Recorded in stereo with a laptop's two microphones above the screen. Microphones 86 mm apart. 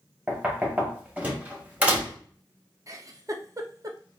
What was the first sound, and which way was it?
Knocking, 15° right (ahead or behind).